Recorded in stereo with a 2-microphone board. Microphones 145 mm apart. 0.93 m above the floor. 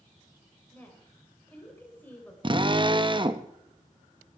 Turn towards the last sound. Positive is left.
turn(degrees=-35)  # may be behind; listen again after turning